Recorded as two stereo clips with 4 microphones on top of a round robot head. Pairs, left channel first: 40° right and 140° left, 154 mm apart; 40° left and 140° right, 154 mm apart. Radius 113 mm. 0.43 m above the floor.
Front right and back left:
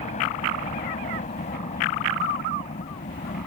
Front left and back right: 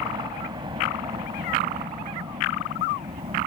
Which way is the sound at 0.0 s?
80° right.